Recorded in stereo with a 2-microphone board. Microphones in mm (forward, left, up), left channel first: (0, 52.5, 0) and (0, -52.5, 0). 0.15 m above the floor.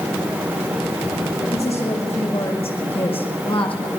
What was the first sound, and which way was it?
A woman speaking, 70° left (ahead or behind).